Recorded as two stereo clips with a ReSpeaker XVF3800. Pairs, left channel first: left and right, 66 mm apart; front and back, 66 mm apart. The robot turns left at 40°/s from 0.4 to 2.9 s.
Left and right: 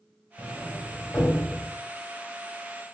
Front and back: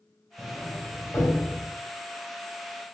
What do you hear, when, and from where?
0.4 s a sliding door: 65° left, 1.5 m; by 1.7 s 15° left, 1.5 m